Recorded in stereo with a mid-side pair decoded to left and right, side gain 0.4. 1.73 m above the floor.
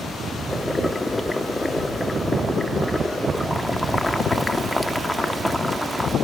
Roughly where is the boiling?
Ahead.